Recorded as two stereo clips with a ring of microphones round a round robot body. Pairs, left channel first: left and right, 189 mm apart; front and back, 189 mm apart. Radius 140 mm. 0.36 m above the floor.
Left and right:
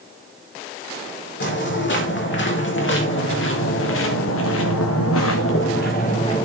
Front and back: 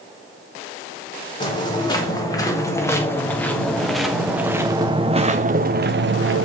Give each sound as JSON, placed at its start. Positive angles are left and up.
{"t": 1.4, "sound": "footsteps", "azimuth_deg": 65, "distance_m": 5.5}